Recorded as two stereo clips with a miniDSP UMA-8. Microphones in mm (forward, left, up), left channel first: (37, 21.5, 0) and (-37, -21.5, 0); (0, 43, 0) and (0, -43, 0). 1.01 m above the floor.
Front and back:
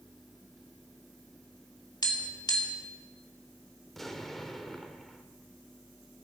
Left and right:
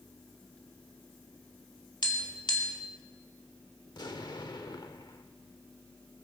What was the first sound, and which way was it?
Tapping, 65° left.